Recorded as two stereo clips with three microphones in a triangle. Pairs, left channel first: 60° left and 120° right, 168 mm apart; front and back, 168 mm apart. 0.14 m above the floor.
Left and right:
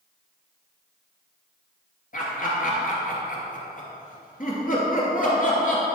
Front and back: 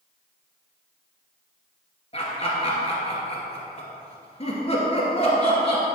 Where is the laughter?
45° left, 2.5 m.